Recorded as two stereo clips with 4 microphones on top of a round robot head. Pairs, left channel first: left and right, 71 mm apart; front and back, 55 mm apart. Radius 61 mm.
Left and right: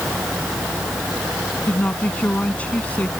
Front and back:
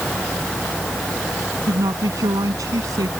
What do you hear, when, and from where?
1.7 s a woman speaking: 160° left